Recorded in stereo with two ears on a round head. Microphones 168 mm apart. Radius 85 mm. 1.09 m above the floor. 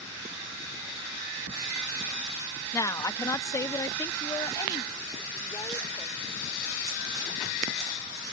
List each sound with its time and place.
2.7 s a woman speaking: 15° left (ahead or behind); by 6.2 s 20° left (ahead or behind)